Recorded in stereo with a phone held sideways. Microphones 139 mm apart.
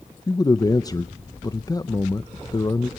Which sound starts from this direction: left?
A man speaking, at 0.3 s.